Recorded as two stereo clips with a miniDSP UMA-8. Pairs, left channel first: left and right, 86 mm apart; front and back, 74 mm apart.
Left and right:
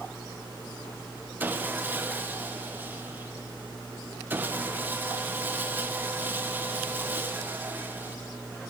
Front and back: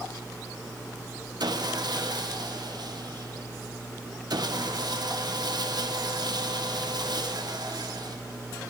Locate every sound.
1.4 s sawing: 155° right, 1.2 m